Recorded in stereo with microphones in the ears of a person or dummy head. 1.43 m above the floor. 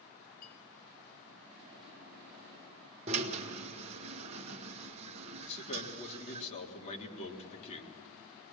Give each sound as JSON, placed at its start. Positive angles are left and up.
{"t": 0.4, "sound": "a clink", "side_deg": 55, "distance_m": 5.0}
{"t": 3.1, "sound": "a drill", "side_deg": -35, "distance_m": 1.4}
{"t": 5.4, "sound": "a man speaking", "side_deg": 40, "distance_m": 3.5}